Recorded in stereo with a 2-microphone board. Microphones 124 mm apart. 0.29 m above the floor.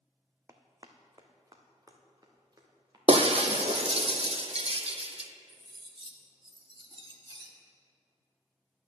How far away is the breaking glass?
About 0.7 m.